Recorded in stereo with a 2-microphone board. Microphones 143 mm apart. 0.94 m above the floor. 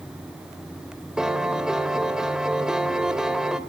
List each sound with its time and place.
1.2 s a piano: 5° right (ahead or behind), 1.3 m